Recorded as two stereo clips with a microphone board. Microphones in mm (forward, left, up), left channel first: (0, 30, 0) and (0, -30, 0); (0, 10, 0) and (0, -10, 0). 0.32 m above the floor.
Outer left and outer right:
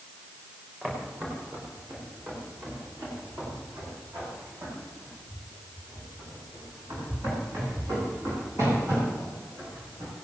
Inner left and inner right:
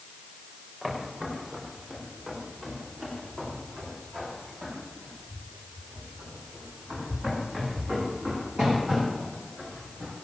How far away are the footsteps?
About 7 m.